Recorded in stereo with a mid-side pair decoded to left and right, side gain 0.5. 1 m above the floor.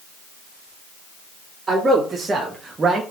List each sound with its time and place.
1.7 s a man speaking: 25° right, 1.9 m; by 3.0 s 50° right, 0.5 m